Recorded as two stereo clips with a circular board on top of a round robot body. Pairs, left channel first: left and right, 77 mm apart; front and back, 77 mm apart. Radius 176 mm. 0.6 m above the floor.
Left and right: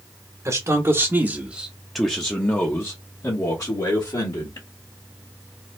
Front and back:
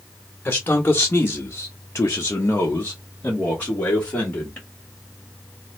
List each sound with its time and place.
0.5 s a man speaking: 60° right, 1.1 m; by 4.7 s 70° left, 1.7 m